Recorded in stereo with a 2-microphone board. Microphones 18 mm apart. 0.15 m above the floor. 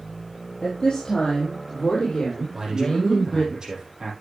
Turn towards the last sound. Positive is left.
turn(degrees=-40)  # may be behind; listen again after turning